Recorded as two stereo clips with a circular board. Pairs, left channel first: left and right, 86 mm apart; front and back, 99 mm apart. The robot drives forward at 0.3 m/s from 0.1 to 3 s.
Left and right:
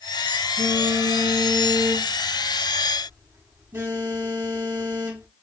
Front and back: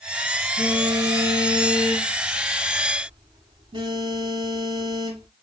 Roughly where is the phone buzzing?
Behind right.